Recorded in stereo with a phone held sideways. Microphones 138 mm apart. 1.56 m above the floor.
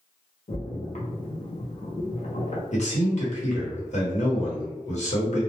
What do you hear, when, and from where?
0.5 s a splash: 55° left (ahead or behind), 0.6 m
2.7 s a man speaking: 60° left (ahead or behind), 1.1 m